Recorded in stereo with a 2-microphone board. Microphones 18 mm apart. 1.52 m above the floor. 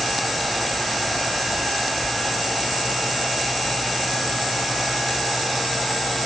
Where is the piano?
No piano in this recording.